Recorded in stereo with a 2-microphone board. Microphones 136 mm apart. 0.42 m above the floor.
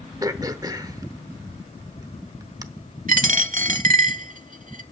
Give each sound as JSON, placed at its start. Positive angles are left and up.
{"t": 0.2, "sound": "throat clearing", "side_deg": -25, "distance_m": 0.9}
{"t": 3.1, "sound": "a dropped coin", "side_deg": -75, "distance_m": 0.8}